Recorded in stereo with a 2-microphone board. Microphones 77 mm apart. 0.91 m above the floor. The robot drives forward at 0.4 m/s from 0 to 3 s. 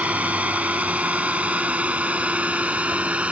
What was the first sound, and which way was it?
A drone, 20° right (ahead or behind).